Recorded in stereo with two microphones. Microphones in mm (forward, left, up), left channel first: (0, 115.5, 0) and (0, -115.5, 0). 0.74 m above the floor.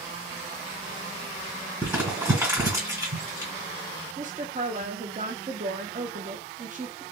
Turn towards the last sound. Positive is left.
turn(degrees=-35)  # may be behind; listen again after turning